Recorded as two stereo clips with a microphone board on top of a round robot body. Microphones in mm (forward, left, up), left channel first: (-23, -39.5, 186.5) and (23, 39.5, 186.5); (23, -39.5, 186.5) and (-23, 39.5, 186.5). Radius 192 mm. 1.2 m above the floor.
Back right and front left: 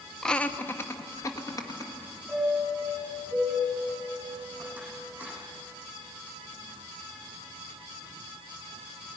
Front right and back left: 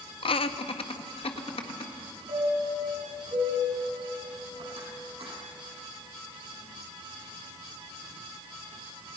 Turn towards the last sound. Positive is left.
turn(degrees=135)